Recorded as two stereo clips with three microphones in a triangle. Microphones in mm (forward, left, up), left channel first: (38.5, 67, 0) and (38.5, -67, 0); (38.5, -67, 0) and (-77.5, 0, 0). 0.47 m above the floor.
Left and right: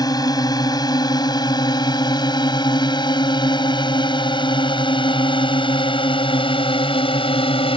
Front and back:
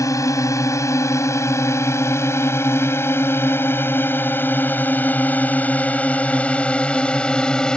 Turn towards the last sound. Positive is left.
turn(degrees=55)